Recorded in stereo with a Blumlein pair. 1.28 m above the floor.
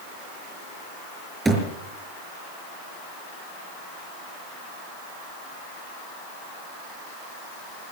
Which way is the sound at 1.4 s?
10° right.